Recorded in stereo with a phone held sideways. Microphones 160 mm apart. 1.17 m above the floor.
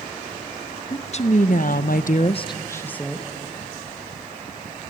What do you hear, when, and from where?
0.9 s a woman speaking: 45° left (ahead or behind), 1.4 m; by 3.3 s 5° left (ahead or behind), 1.5 m